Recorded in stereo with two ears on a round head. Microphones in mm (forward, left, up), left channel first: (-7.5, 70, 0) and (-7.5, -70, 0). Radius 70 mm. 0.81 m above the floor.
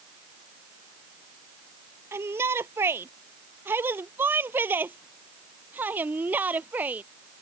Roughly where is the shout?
Centre.